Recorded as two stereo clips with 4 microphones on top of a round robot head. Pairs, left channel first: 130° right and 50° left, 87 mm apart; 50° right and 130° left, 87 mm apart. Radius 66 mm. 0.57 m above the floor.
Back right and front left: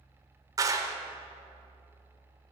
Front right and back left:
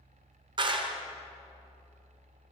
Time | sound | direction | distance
0.6 | a clap | 100° left | 1.4 m